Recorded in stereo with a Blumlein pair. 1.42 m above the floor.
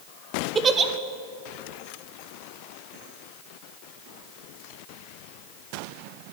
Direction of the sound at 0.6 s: 20° right.